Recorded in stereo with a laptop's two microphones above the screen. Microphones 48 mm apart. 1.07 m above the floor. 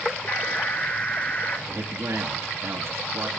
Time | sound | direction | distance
0.3 | an alarm | 35° left (ahead or behind) | 1.5 m
1.7 | a man speaking | 75° right (ahead or behind) | 1.6 m